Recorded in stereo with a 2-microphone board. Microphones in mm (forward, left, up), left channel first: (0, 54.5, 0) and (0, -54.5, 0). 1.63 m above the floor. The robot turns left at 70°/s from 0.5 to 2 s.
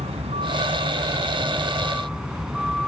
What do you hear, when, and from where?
0.0 s a vehicle: 70° right; by 2.9 s 175° right